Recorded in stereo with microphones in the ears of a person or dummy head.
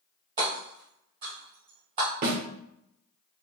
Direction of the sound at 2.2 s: 40° right (ahead or behind).